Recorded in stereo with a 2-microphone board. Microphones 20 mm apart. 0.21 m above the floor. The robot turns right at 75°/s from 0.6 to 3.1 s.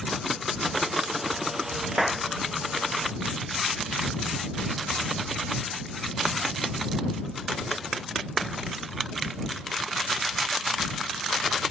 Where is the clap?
15° right (ahead or behind); by 2.3 s 5° left (ahead or behind).